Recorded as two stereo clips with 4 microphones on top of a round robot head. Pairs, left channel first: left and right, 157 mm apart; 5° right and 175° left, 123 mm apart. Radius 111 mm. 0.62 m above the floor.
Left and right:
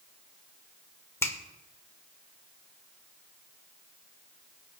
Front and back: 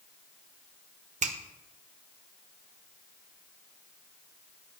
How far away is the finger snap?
About 1.7 m.